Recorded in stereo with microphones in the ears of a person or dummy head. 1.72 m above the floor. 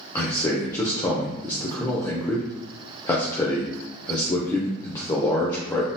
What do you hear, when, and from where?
0.1 s a man speaking: 20° left (ahead or behind), 0.5 m